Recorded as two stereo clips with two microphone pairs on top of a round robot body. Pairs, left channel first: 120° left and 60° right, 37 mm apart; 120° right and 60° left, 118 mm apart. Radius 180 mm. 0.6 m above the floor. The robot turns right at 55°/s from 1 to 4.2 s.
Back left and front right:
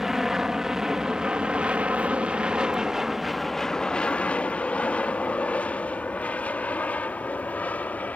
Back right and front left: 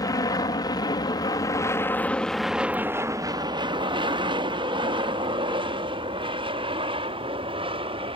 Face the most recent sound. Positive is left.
turn(degrees=80)